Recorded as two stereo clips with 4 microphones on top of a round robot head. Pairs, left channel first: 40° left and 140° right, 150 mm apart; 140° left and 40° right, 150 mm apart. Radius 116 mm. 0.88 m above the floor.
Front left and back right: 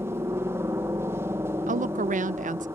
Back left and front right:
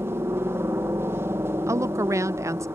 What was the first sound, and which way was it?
A helicopter, 90° right.